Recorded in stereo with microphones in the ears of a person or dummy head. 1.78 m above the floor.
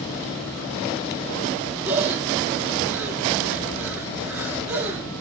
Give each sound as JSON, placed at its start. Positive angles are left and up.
{"t": 1.9, "sound": "breathing", "side_deg": -10, "distance_m": 1.1}